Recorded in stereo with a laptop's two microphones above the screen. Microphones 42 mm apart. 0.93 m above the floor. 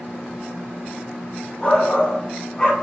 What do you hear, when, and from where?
1.6 s a shout: 25° left (ahead or behind), 1.5 m